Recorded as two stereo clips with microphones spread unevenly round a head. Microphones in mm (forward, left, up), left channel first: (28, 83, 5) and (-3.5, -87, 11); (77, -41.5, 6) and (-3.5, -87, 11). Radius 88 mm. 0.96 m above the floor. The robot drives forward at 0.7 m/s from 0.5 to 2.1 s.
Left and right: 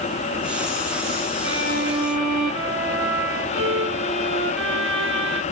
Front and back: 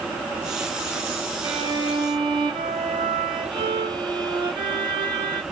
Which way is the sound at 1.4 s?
105° right.